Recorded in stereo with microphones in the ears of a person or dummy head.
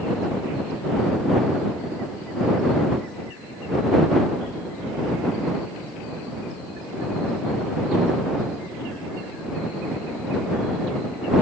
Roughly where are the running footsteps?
I don't hear running footsteps.